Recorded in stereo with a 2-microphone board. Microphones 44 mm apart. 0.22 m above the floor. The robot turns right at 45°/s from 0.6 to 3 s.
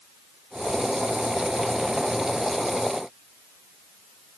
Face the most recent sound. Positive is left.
No sound to turn to.